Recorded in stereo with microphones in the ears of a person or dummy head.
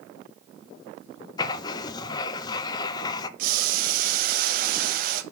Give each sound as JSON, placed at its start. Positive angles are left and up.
{"t": 1.4, "sound": "writing", "side_deg": 25, "distance_m": 0.5}
{"t": 3.4, "sound": "boiling", "side_deg": -60, "distance_m": 1.0}